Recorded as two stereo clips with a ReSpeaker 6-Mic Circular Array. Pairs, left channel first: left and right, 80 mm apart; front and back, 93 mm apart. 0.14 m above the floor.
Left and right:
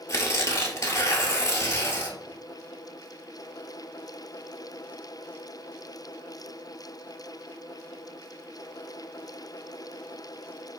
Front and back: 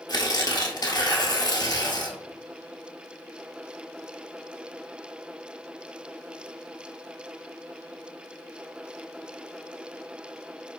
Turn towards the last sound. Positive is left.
turn(degrees=40)